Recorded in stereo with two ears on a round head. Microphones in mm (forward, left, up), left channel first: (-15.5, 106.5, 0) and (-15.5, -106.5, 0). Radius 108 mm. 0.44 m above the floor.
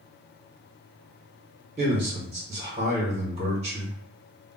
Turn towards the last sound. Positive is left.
turn(degrees=-25)  # may be behind; listen again after turning